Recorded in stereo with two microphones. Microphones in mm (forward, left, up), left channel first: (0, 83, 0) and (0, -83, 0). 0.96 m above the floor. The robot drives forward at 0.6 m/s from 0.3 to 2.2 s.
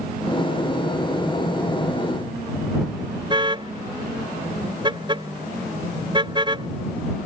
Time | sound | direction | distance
3.3 | a car horn | 30° right (ahead or behind) | ?